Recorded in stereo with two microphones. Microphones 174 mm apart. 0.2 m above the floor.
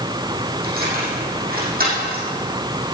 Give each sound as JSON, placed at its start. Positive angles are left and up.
{"t": 0.6, "sound": "keys jangling", "side_deg": -60, "distance_m": 5.5}